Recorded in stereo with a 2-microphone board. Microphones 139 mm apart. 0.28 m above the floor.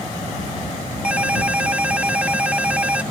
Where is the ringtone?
10° right (ahead or behind).